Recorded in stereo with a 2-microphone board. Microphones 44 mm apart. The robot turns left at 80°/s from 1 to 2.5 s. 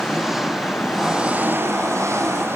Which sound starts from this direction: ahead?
An engine running, at 0.0 s.